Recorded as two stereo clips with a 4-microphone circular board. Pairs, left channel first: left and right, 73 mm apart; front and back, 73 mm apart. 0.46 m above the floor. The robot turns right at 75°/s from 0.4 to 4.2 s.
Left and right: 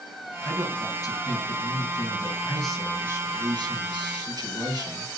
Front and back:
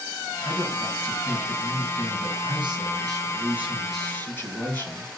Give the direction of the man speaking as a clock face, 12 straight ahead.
12 o'clock.